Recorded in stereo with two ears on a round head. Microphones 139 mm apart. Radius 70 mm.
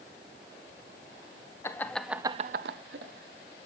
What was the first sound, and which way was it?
Laughter, 20° left (ahead or behind).